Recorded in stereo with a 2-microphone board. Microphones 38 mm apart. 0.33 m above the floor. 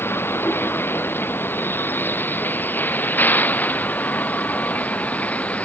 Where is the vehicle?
75° left (ahead or behind); by 5.7 s 40° left (ahead or behind).